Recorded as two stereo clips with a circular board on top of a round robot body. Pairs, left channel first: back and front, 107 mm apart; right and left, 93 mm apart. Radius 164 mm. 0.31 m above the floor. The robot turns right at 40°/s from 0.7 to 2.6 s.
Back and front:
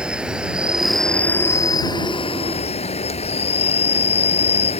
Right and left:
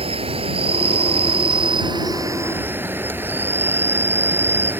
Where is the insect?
80° left; by 4.8 s 160° left.